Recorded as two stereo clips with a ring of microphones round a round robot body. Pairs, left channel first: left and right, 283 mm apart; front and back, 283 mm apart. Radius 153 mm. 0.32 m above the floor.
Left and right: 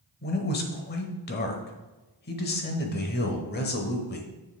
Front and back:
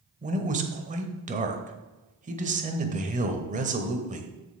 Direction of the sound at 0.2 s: 130° left.